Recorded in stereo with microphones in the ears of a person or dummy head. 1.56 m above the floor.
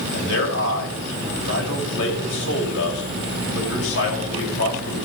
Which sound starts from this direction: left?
A man speaking, at 0.1 s.